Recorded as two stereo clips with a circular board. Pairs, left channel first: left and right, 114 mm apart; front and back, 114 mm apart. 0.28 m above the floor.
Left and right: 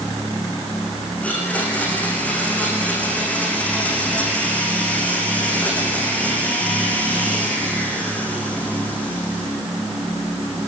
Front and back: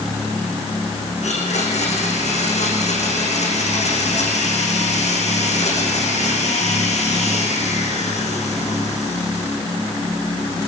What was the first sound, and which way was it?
A blender, 15° left.